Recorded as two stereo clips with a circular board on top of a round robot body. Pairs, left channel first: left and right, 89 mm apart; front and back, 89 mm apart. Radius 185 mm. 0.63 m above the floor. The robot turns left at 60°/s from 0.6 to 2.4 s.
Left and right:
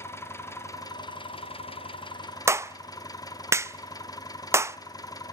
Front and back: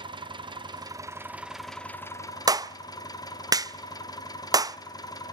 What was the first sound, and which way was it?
An engine running, 150° left.